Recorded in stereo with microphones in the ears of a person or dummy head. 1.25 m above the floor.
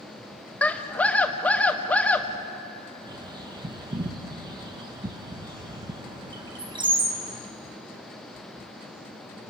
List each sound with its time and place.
0.6 s a scream: centre (ahead or behind), 1.3 m
3.1 s a bird: 30° right (ahead or behind), 1.6 m